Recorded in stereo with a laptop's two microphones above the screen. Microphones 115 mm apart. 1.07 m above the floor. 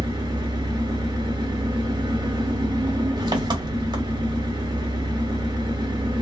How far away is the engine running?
About 1.2 m.